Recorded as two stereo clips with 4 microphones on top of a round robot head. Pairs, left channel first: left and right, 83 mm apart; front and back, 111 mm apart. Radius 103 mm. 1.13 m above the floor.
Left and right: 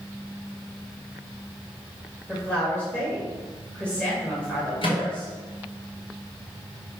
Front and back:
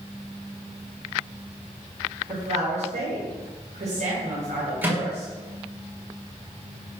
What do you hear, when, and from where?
2.3 s a woman speaking: 165° left, 2.5 m
4.8 s a microwave: 105° left, 2.5 m